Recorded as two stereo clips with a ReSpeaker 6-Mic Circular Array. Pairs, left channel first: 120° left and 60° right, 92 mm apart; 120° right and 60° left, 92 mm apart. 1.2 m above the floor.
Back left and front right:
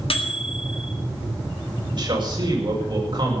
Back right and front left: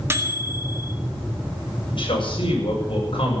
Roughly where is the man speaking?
Right.